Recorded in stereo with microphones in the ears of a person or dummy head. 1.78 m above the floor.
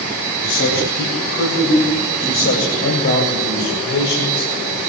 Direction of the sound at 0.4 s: 80° left.